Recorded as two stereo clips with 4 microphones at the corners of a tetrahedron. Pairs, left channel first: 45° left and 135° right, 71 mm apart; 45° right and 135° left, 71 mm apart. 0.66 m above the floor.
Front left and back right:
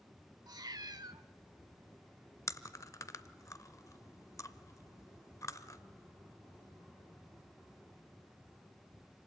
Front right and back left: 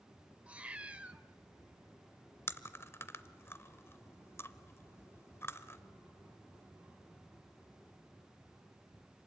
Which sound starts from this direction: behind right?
A cat meowing, at 0.5 s.